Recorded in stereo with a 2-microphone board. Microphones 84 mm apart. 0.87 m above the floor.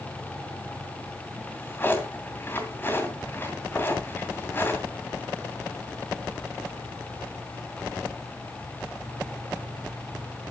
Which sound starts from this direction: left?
A drawer, at 1.4 s.